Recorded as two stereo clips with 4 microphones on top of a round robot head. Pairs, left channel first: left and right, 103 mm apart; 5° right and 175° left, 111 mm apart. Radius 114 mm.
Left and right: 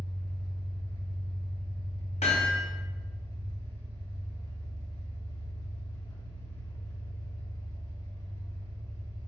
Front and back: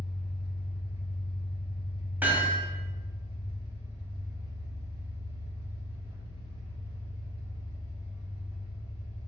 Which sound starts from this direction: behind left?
An engine running, at 0.0 s.